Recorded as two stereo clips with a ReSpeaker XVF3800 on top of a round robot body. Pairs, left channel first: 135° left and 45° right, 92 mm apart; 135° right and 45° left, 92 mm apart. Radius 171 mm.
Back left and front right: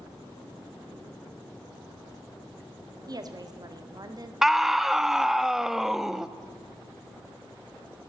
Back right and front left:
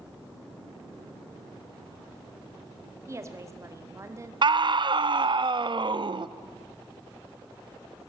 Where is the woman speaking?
10° right, 2 m.